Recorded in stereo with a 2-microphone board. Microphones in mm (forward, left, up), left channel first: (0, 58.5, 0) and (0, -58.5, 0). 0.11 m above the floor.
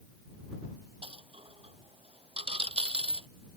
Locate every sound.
1.0 s a dropped coin: 55° right (ahead or behind)